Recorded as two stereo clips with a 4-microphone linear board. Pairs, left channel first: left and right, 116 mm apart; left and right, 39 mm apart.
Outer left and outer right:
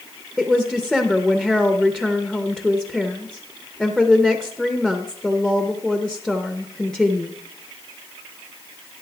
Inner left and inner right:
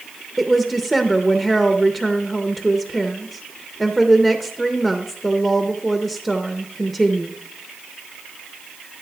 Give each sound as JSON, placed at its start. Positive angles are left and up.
{"t": 0.4, "sound": "a woman speaking", "side_deg": 5, "distance_m": 0.6}